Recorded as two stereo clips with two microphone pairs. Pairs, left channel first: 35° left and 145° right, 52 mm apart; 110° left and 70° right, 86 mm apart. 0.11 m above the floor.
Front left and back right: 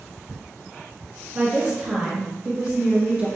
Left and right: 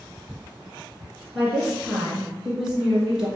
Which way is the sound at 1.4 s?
150° right.